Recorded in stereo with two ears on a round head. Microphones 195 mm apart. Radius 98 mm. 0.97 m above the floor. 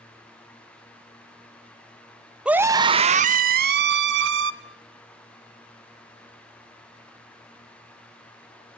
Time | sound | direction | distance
2.5 | a scream | 5° right (ahead or behind) | 0.8 m